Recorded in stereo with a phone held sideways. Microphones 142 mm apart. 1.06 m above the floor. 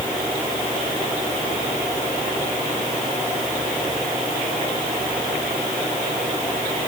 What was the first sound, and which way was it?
Only background noise.